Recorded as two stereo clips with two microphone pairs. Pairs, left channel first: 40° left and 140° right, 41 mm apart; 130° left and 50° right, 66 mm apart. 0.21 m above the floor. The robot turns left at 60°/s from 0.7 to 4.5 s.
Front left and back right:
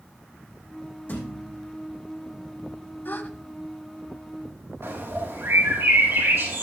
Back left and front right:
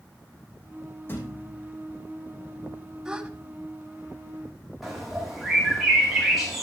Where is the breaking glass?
No breaking glass in this recording.